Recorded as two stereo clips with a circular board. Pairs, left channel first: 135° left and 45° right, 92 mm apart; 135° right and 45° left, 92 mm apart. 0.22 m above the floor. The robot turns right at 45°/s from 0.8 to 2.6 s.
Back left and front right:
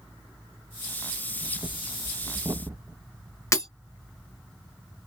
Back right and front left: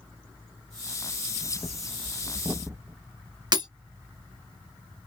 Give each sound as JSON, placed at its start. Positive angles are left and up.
{"t": 1.4, "sound": "breathing", "azimuth_deg": -55, "distance_m": 0.6}
{"t": 3.5, "sound": "breaking glass", "azimuth_deg": 80, "distance_m": 1.2}